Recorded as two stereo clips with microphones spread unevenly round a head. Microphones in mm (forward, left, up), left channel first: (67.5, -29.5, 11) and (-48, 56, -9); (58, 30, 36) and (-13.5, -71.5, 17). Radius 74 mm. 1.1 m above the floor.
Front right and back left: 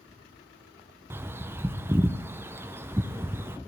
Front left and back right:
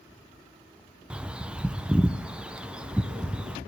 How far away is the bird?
About 0.6 m.